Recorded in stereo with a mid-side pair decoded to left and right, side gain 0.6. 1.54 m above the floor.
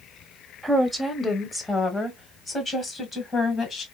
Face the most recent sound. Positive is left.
turn(degrees=40)